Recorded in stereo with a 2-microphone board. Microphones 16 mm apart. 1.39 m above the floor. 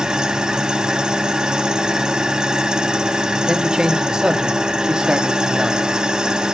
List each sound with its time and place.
0.0 s an engine running: 45° right (ahead or behind), 1.2 m
3.5 s a man speaking: 50° right (ahead or behind), 1.3 m